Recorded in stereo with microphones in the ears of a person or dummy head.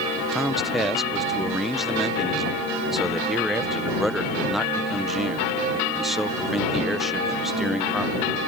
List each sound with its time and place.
0.3 s a man speaking: 5° right (ahead or behind)